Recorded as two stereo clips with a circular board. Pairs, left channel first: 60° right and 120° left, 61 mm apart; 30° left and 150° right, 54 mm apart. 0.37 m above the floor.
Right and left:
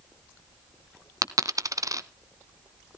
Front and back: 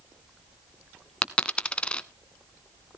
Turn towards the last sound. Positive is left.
turn(degrees=100)